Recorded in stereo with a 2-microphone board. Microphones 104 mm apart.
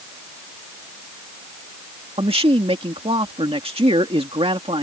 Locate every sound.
2.2 s a man speaking: 65° right (ahead or behind)